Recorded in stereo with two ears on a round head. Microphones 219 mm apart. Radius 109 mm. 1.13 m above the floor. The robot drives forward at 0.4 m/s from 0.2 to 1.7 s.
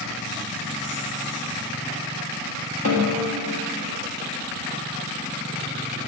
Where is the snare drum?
60° left (ahead or behind), 1.0 m.